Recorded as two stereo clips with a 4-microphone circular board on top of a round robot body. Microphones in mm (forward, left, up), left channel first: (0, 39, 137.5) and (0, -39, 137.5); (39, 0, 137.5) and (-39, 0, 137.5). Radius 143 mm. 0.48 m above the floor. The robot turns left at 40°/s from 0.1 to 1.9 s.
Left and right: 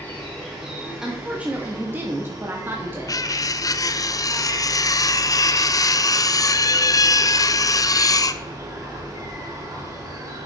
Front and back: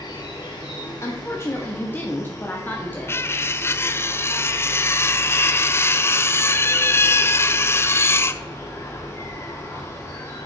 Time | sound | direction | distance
0.0 | an insect | 20° left | 2 m
1.0 | a woman speaking | 10° right | 1.5 m
3.1 | cutlery clinking | 55° left | 0.5 m